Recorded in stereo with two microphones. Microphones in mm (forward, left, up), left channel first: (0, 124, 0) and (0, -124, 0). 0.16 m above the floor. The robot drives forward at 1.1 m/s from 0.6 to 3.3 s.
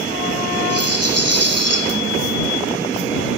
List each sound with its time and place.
0.7 s a rattle: 70° right (ahead or behind), 5 m; by 1.8 s 80° right, 4.5 m